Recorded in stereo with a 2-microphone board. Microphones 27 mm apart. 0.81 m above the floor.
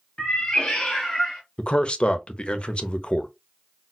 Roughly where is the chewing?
I don't hear chewing.